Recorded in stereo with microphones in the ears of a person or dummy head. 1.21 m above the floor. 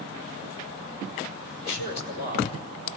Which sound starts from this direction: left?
A man speaking, at 1.6 s.